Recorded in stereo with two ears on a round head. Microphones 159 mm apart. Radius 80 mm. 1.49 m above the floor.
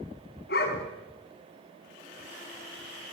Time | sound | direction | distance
0.5 | a dog barking | 60° left (ahead or behind) | 4.5 m